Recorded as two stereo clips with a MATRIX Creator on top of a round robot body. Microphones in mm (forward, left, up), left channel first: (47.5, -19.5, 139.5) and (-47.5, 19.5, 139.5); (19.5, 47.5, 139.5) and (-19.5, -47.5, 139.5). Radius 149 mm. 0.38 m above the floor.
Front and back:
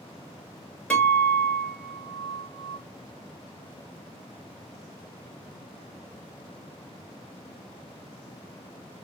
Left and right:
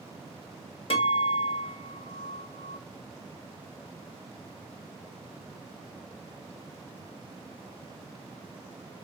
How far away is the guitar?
About 1.9 m.